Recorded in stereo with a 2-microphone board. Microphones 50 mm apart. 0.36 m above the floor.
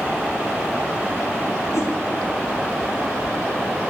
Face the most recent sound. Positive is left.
turn(degrees=85)